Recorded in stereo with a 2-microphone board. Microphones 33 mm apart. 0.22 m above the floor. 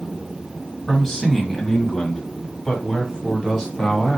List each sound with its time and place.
0.9 s a man speaking: 5° left (ahead or behind), 1.3 m; by 4.2 s 15° left (ahead or behind), 1.6 m